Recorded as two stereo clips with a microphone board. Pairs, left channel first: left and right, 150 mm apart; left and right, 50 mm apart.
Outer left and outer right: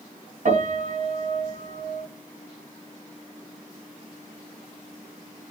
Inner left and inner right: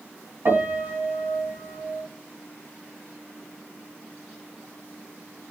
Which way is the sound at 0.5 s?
60° right (ahead or behind).